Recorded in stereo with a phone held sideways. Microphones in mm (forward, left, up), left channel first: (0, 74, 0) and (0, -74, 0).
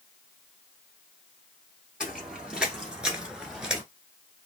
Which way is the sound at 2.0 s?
5° right (ahead or behind).